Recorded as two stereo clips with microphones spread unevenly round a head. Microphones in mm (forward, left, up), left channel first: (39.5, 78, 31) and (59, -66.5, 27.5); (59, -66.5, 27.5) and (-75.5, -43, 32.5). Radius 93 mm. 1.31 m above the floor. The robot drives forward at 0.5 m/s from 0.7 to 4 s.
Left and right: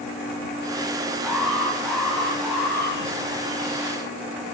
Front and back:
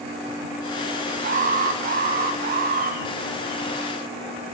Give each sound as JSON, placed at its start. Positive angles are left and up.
{"t": 1.2, "sound": "an alarm", "azimuth_deg": -175, "distance_m": 1.4}